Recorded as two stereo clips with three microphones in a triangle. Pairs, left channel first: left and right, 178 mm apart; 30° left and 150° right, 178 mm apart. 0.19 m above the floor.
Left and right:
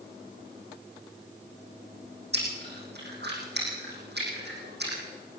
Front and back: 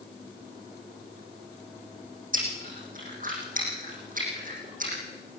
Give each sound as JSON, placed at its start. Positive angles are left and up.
{"t": 2.3, "sound": "chewing", "azimuth_deg": -110, "distance_m": 9.5}